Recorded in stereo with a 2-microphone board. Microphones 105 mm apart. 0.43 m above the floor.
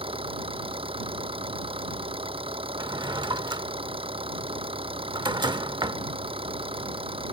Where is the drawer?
45° right (ahead or behind).